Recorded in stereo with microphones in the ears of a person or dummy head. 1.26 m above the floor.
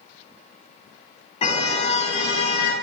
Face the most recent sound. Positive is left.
turn(degrees=35)  # may be behind; listen again after turning